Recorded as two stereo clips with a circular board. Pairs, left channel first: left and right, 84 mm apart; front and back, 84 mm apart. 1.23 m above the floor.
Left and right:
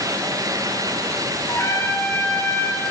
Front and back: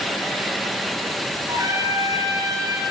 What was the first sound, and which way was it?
A trumpet, 140° left.